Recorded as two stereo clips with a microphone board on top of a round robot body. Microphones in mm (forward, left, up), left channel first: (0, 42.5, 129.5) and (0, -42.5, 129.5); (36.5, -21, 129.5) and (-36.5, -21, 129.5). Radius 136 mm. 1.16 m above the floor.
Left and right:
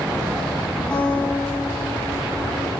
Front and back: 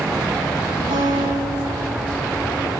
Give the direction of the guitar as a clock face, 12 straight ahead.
6 o'clock.